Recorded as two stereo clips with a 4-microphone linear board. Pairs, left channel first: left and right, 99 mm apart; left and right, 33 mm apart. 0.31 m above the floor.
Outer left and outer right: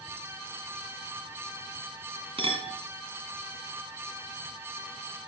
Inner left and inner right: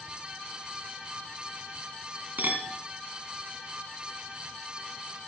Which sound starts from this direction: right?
A clink, at 2.4 s.